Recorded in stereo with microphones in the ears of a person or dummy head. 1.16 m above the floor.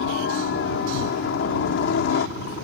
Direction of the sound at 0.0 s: 60° left (ahead or behind).